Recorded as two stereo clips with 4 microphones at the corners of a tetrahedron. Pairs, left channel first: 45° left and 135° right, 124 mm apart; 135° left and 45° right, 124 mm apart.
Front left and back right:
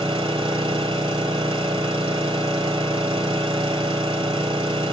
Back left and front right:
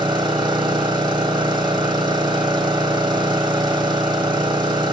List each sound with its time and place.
0.0 s an engine running: 90° right, 1.8 m